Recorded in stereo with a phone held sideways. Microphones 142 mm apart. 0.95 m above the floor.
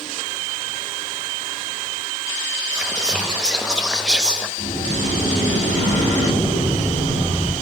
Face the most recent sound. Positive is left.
turn(degrees=-70)  # may be behind; listen again after turning